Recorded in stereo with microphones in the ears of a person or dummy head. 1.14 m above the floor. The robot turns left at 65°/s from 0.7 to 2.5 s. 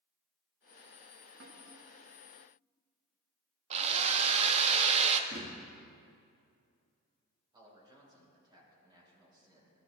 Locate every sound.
1.4 s a snare drum: 80° right, 4.5 m; by 1.6 s 70° right (ahead or behind), 4.5 m
3.7 s a drill: 40° right (ahead or behind), 0.8 m
5.3 s a thud: 50° right (ahead or behind), 4 m
7.5 s a man speaking: 25° right (ahead or behind), 4.5 m